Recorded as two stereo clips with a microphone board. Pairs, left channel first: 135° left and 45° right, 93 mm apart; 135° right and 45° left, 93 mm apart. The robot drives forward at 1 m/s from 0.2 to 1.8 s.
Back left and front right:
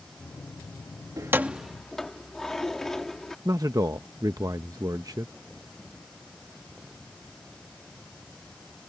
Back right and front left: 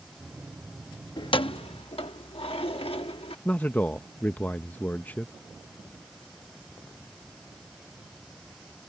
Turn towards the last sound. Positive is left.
turn(degrees=-70)